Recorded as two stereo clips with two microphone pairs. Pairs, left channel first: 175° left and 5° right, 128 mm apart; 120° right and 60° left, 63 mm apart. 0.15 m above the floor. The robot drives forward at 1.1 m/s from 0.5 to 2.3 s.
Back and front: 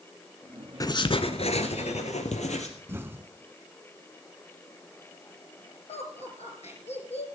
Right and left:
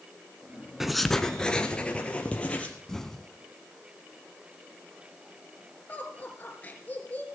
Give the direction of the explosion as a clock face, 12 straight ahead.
2 o'clock.